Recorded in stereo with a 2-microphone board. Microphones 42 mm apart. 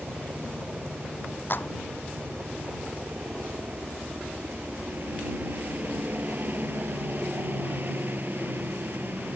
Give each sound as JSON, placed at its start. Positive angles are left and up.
{"t": 0.0, "sound": "a helicopter", "side_deg": -40}
{"t": 1.5, "sound": "a clap", "side_deg": 50}